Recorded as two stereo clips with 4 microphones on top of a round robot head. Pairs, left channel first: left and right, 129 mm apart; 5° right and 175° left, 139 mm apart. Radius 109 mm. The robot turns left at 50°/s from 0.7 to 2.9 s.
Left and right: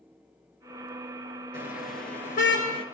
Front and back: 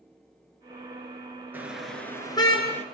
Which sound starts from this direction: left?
A car horn, at 1.5 s.